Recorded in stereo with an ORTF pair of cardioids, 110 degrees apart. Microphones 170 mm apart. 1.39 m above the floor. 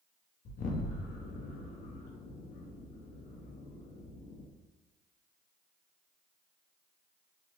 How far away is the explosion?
About 0.6 m.